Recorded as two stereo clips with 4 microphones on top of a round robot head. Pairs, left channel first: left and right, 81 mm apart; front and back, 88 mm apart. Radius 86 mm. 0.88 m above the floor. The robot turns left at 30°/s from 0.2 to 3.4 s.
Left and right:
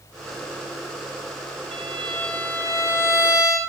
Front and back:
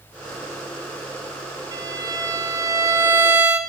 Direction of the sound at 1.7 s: 170° left.